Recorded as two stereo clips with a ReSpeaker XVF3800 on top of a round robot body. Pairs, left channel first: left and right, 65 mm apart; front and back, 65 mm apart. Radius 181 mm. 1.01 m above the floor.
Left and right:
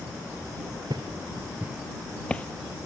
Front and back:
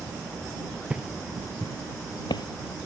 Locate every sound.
0.9 s footsteps: 110° right; by 2.5 s 20° left